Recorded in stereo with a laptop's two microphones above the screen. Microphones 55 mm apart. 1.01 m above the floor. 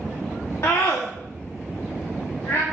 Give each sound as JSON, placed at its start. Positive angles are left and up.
{"t": 0.6, "sound": "a scream", "side_deg": 65, "distance_m": 1.7}